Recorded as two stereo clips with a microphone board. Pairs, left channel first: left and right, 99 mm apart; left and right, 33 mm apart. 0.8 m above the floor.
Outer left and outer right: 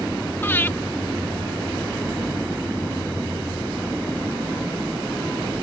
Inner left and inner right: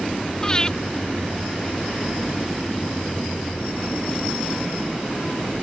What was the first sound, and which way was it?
Breathing, 20° left (ahead or behind).